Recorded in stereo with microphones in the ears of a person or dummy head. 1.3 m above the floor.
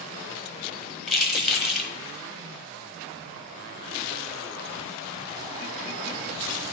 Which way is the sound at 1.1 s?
Centre (ahead or behind).